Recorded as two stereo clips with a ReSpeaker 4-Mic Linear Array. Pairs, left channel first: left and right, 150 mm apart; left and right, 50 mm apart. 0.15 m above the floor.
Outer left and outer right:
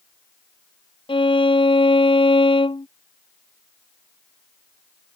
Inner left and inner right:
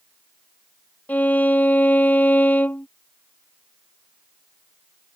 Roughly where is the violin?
Left.